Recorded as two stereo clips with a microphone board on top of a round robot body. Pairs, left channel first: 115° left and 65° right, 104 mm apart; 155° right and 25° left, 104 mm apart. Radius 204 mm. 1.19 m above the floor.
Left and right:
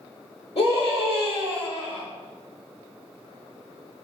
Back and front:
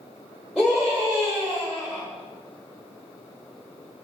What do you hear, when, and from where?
0.6 s a scream: 105° left, 1.2 m